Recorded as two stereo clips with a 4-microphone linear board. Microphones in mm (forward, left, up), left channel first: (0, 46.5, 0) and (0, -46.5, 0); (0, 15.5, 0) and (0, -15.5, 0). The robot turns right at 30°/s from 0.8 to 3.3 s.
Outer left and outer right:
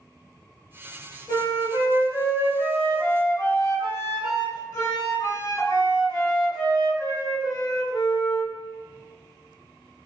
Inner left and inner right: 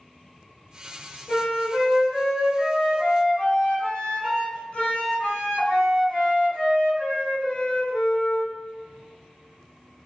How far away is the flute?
About 1.8 m.